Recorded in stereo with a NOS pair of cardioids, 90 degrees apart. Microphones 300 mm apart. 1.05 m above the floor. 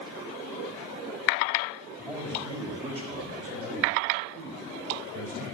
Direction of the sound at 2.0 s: 5° right.